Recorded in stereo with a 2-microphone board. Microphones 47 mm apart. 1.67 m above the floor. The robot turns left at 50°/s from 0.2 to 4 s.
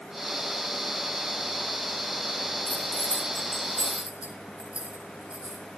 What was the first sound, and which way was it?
Keys jangling, 45° left (ahead or behind).